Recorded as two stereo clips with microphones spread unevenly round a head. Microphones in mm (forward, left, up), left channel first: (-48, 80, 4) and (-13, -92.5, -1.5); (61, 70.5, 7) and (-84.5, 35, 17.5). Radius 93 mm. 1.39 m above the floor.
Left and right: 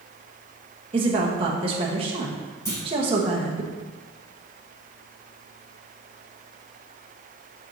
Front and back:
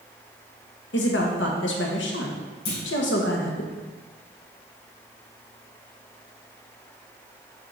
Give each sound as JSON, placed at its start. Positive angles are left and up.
{"t": 0.9, "sound": "a woman speaking", "azimuth_deg": -15, "distance_m": 1.2}
{"t": 2.6, "sound": "a clunk", "azimuth_deg": 25, "distance_m": 3.5}